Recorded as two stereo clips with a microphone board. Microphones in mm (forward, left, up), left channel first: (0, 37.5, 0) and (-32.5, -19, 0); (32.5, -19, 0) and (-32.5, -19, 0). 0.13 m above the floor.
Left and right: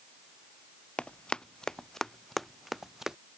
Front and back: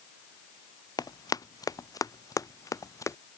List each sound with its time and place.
1.0 s running footsteps: 15° right; by 3.2 s 35° right